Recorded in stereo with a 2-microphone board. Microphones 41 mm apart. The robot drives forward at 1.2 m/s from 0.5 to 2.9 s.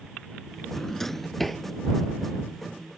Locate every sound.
0.8 s a drawer: 15° left (ahead or behind); by 1.6 s 5° left (ahead or behind)